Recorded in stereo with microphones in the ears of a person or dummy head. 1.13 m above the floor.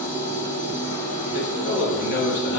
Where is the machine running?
75° left (ahead or behind), 1.5 m.